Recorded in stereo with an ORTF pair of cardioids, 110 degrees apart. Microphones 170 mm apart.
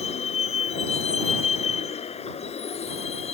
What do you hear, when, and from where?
0.0 s a vehicle: 40° left